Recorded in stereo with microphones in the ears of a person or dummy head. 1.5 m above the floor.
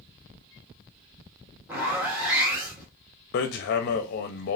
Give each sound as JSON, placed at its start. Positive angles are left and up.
{"t": 1.7, "sound": "a zipper", "side_deg": -15, "distance_m": 1.6}
{"t": 3.3, "sound": "hammering", "side_deg": 50, "distance_m": 0.5}